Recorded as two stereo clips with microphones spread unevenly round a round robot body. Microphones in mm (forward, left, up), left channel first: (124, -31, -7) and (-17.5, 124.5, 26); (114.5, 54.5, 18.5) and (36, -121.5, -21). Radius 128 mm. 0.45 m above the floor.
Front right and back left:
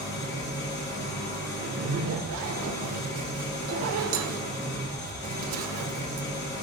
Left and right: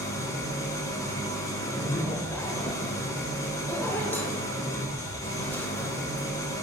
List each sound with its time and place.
0.0 s an engine running: 10° right, 3.5 m
1.6 s a zipper: 155° left, 0.7 m